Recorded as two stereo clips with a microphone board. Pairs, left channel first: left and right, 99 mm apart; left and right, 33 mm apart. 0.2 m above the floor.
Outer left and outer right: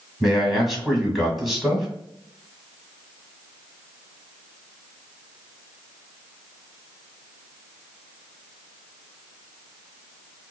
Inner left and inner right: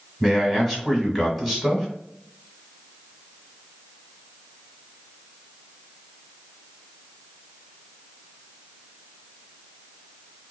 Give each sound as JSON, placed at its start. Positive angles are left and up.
{"t": 0.2, "sound": "a man speaking", "side_deg": 0, "distance_m": 1.6}